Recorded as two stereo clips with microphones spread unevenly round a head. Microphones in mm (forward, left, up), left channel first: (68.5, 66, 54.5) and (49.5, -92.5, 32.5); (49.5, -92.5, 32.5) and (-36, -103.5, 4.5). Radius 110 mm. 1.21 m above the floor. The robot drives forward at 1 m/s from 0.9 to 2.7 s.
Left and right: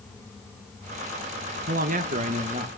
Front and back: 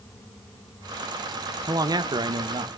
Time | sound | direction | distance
1.7 | a man speaking | 125° right | 1.1 m